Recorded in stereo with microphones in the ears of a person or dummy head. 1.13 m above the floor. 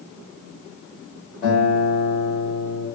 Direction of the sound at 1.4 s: 35° left (ahead or behind).